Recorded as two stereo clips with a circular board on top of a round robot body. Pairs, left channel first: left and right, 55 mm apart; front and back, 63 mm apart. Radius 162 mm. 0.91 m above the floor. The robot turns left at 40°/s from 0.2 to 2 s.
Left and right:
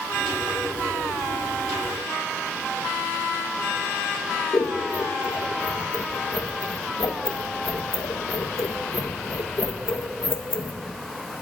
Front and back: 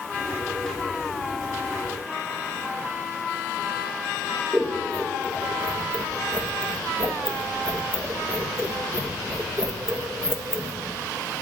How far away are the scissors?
About 1.3 m.